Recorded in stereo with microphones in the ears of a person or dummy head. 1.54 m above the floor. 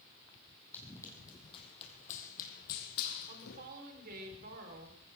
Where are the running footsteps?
10° left (ahead or behind), 4 m; by 3.7 s 65° left (ahead or behind), 3.5 m.